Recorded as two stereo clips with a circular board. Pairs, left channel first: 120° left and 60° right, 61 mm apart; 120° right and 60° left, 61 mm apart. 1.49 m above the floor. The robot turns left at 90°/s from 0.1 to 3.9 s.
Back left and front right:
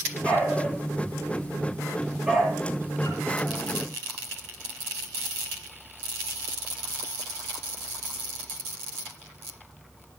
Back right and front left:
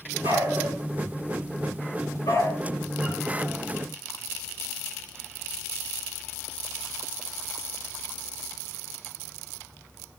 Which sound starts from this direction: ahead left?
A dog barking, at 0.2 s.